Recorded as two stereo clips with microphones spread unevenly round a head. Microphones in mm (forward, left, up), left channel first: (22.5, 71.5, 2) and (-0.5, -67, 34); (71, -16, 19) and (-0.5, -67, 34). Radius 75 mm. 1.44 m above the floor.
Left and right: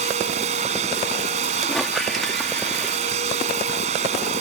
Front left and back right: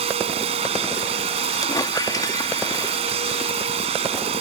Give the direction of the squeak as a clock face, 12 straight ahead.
12 o'clock.